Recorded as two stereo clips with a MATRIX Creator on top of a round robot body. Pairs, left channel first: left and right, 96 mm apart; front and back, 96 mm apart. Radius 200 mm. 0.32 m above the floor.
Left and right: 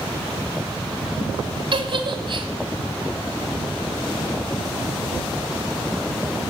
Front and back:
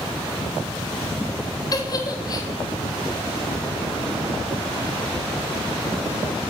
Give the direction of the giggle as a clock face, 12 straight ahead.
2 o'clock.